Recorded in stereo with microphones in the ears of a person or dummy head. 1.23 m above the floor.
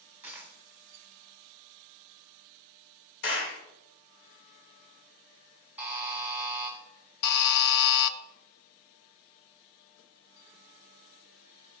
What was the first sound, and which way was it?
A dropped coin, 15° right (ahead or behind).